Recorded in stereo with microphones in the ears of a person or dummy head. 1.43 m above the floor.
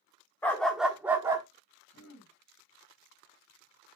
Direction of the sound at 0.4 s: 15° left (ahead or behind).